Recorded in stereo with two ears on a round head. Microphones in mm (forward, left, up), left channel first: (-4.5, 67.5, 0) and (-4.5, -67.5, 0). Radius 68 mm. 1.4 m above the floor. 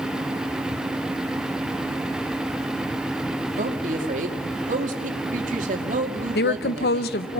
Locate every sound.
3.6 s a woman speaking: 55° right (ahead or behind), 2.5 m
6.3 s a woman speaking: 75° left (ahead or behind), 0.9 m